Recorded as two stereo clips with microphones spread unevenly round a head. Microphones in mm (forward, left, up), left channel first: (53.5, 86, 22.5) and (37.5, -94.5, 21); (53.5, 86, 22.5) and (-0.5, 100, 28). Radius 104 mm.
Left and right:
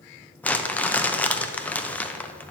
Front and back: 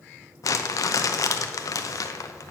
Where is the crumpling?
5° left, 0.7 m.